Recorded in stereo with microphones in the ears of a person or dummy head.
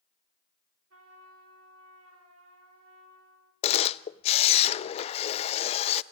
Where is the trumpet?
80° right, 4 m.